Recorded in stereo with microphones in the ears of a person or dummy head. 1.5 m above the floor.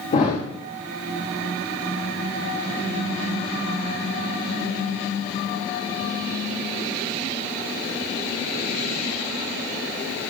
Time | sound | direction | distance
0.1 | a thud | 30° left (ahead or behind) | 1.6 m